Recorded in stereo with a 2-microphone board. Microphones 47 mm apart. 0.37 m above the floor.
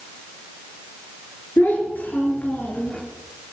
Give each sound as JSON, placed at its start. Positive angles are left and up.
{"t": 1.6, "sound": "a child speaking", "side_deg": 45, "distance_m": 5.0}